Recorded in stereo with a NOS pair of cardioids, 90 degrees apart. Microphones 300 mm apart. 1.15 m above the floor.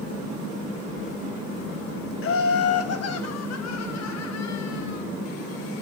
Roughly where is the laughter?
Ahead left.